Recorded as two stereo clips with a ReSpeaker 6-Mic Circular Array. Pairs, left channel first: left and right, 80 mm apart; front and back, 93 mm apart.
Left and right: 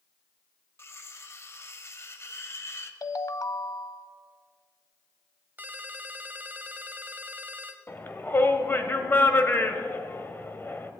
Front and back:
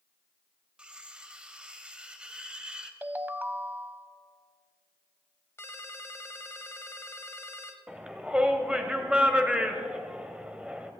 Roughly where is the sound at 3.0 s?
Behind left.